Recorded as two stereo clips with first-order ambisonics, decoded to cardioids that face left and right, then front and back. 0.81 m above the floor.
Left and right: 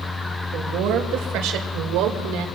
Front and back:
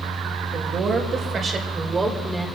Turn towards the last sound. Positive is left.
turn(degrees=-95)